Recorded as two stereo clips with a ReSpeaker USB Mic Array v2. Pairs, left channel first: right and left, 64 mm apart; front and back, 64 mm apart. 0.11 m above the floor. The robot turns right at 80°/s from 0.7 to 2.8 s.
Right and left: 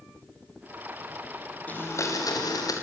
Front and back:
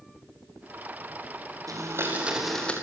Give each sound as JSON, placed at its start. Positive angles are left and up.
{"t": 1.7, "sound": "a blender", "azimuth_deg": -155, "distance_m": 6.0}